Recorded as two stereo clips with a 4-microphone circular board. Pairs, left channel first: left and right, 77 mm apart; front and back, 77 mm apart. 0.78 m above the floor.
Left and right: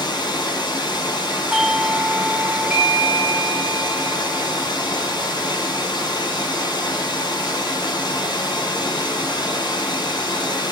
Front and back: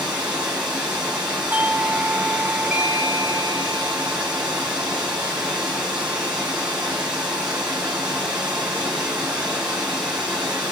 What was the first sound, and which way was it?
Running water, 105° left.